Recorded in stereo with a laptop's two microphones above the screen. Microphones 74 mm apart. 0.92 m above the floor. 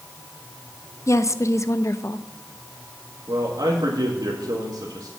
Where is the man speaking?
60° right (ahead or behind), 1.7 m.